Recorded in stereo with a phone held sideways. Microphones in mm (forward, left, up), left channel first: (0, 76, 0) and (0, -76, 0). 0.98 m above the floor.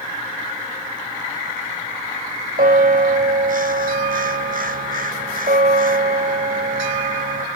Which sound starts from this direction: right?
A bell, at 2.6 s.